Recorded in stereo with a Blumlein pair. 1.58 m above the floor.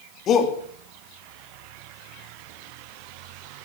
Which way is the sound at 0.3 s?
30° left.